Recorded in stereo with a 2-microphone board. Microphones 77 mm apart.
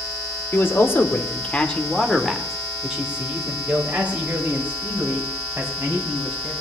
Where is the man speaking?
30° left (ahead or behind), 1.4 m; by 6.5 s 30° right (ahead or behind), 4 m.